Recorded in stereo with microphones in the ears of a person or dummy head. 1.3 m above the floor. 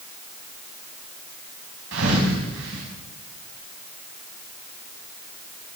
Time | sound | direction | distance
1.9 | a thud | 70° right (ahead or behind) | 4.5 m